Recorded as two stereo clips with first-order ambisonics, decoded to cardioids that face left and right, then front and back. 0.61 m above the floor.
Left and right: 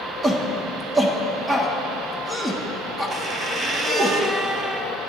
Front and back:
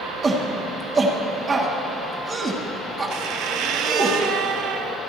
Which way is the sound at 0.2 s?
160° right.